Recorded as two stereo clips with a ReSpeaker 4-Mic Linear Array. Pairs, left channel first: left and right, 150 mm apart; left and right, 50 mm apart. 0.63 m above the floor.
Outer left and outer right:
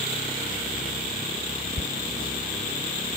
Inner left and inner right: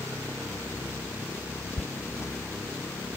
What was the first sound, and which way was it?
Footsteps, 50° left (ahead or behind).